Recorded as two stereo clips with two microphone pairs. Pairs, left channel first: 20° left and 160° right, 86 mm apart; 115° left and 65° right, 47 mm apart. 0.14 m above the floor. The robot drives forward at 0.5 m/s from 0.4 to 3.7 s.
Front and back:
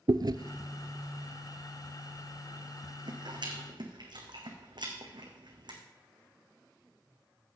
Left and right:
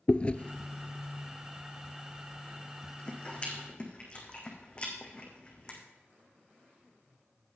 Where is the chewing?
175° left, 0.6 m; by 5.8 s straight behind, 2 m.